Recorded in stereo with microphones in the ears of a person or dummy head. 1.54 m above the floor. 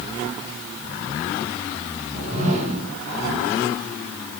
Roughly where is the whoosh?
Right.